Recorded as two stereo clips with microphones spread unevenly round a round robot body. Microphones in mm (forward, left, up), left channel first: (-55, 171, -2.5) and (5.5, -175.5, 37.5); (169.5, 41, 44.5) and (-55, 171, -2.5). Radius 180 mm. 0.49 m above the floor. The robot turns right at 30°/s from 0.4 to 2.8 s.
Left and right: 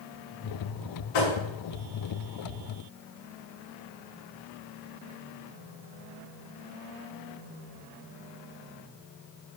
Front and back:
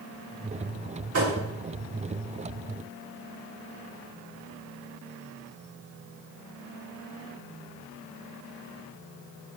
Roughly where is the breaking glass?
No breaking glass in this recording.